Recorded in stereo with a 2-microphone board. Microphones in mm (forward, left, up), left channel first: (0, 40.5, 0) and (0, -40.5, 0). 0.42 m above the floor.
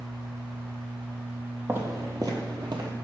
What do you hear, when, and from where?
1.7 s footsteps: 25° right (ahead or behind), 0.8 m; by 2.9 s 60° right (ahead or behind), 0.8 m